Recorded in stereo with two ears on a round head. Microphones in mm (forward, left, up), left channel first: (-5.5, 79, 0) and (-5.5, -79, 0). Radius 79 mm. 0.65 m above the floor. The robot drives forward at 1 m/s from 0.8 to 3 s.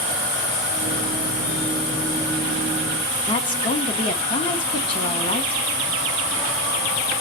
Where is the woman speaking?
30° left (ahead or behind), 1.2 m.